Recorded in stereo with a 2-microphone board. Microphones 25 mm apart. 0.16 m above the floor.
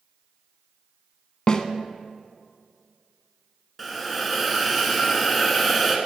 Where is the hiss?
Centre (ahead or behind), 1.0 m.